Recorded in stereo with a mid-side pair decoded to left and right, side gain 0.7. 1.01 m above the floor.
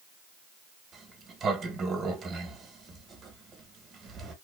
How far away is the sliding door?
About 1.0 m.